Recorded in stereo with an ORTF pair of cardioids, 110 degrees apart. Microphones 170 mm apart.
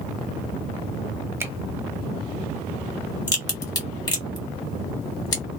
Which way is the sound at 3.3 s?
25° left.